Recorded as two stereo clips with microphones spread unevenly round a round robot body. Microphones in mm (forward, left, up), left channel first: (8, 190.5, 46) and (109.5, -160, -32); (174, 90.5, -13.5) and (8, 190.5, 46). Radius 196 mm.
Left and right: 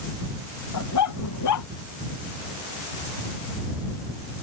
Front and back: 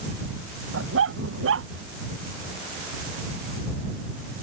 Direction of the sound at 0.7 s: 155° left.